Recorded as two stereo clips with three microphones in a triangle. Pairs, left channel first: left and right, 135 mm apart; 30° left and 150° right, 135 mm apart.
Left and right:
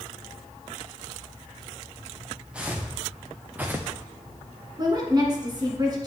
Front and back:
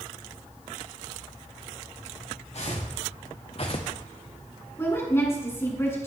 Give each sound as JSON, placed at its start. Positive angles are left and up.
{"t": 2.5, "sound": "footsteps", "azimuth_deg": -10, "distance_m": 1.8}
{"t": 4.8, "sound": "a woman speaking", "azimuth_deg": -40, "distance_m": 2.5}